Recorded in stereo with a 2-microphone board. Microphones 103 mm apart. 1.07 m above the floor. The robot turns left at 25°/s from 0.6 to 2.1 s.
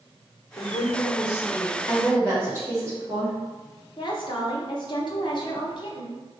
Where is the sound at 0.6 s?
35° left (ahead or behind), 0.8 m; by 1.8 s 25° left (ahead or behind), 0.8 m.